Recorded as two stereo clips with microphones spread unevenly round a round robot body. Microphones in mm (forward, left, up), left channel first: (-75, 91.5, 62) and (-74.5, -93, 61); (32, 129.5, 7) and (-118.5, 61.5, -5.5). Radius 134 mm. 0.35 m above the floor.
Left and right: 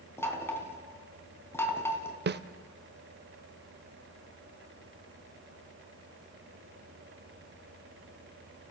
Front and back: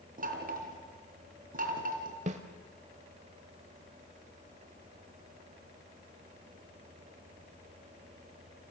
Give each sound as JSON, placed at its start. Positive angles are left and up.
{"t": 0.2, "sound": "knocking", "azimuth_deg": 170, "distance_m": 3.5}
{"t": 2.3, "sound": "a snare drum", "azimuth_deg": -105, "distance_m": 0.8}